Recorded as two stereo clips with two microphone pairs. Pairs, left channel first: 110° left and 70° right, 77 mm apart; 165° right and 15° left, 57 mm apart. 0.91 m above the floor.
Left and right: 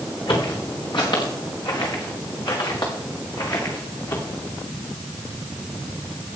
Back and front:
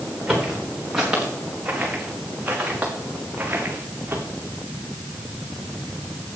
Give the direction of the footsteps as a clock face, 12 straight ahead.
9 o'clock.